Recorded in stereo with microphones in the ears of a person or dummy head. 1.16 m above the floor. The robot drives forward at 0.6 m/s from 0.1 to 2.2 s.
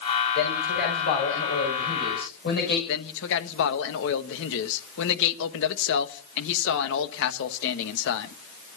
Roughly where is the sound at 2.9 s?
Left.